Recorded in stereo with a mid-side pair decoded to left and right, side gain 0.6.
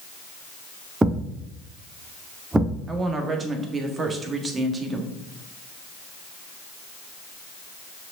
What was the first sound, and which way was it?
A thud, 15° right.